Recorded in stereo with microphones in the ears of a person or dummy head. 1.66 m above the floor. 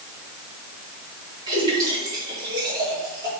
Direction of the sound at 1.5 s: 20° right (ahead or behind).